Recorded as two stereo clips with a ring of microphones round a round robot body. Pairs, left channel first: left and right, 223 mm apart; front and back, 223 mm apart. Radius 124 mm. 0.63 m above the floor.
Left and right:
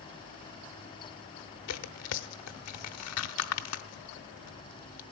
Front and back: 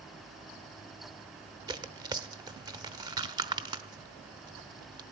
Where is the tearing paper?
105° left, 0.8 m.